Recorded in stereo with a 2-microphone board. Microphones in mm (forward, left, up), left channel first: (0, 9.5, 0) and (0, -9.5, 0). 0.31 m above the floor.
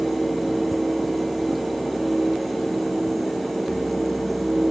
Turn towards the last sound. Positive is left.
No sound to turn to.